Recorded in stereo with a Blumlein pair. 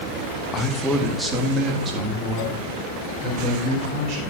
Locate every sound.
0.5 s a man speaking: 20° left, 1.0 m; by 4.3 s 30° right, 5 m